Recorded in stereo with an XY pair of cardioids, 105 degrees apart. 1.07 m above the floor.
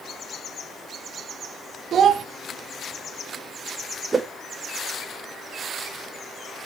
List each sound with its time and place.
1.9 s a child speaking: 60° right, 1.1 m
4.1 s a whoosh: 30° right, 0.9 m